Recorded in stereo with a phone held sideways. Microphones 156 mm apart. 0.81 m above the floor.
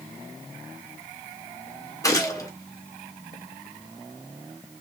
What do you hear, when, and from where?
2.0 s a gunshot: 20° left (ahead or behind), 1.7 m